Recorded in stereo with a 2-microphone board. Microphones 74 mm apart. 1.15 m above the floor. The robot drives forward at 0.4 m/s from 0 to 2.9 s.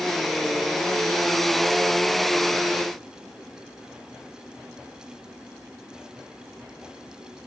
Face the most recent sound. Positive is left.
No sound to turn to.